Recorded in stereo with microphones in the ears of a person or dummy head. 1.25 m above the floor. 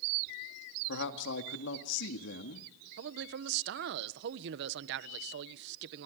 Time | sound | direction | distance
0.9 | a man speaking | 70° left (ahead or behind) | 2.0 m
3.0 | a man speaking | 55° right (ahead or behind) | 1.1 m